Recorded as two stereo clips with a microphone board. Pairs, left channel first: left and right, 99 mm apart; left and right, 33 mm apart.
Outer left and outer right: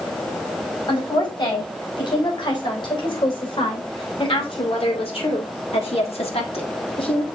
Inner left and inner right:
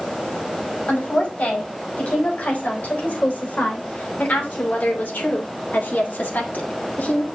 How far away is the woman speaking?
About 4.5 m.